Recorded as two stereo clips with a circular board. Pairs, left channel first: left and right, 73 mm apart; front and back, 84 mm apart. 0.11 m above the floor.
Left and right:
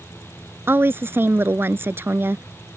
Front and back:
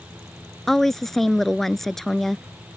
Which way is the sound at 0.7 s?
85° right.